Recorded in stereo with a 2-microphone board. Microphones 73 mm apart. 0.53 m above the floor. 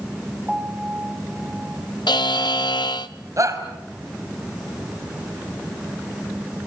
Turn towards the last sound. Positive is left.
turn(degrees=-45)  # may be behind; listen again after turning